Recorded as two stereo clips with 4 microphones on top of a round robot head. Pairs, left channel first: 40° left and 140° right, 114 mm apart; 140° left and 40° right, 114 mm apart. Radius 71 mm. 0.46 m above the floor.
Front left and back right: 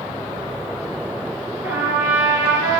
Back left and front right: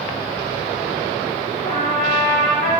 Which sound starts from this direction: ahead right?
A trumpet, at 1.6 s.